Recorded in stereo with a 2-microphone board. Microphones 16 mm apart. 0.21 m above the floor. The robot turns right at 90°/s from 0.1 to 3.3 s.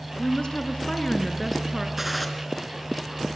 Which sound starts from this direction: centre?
A gunshot, at 2.0 s.